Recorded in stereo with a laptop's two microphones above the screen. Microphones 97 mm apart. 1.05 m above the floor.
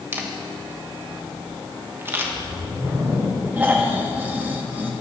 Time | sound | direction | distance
0.1 | a camera shutter | 25° right (ahead or behind) | 1.1 m
2.2 | a whoosh | 55° right (ahead or behind) | 4.5 m
3.6 | snoring | 15° right (ahead or behind) | 1.5 m